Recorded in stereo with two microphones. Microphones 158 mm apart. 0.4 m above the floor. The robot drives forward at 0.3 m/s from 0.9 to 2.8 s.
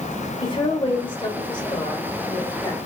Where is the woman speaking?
30° left (ahead or behind), 1.1 m; by 2.8 s 25° left (ahead or behind), 1.4 m.